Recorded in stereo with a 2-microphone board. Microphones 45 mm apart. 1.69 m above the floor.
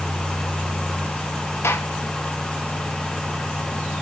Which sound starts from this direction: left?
A gunshot, at 1.6 s.